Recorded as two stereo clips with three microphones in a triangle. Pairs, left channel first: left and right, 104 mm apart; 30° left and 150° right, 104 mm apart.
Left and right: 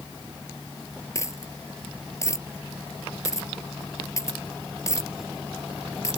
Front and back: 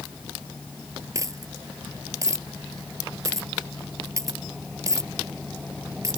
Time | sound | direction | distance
1.1 | a dropped coin | 150° left | ?